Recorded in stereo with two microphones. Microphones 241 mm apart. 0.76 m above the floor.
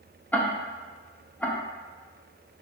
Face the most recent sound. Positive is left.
turn(degrees=5)  # may be behind; listen again after turning